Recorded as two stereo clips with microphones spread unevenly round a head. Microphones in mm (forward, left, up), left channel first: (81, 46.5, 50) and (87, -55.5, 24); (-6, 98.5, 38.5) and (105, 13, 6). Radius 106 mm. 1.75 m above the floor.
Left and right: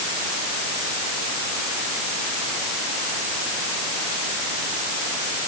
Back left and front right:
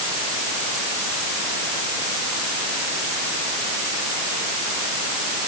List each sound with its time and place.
Only background noise.